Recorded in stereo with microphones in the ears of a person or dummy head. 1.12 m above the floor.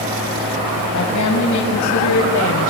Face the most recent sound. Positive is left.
turn(degrees=90)